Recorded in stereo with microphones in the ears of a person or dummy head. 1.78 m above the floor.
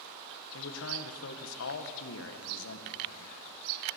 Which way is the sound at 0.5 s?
75° left (ahead or behind).